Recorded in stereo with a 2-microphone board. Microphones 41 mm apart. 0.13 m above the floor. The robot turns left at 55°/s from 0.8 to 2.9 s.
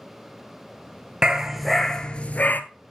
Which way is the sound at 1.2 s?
160° right.